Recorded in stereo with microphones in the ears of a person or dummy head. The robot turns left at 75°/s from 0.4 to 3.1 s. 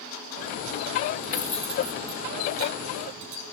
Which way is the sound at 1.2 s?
30° left (ahead or behind).